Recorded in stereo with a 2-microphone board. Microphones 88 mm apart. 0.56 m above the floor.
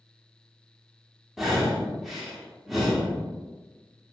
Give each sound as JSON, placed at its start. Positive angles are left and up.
{"t": 1.4, "sound": "breathing", "side_deg": 0, "distance_m": 0.7}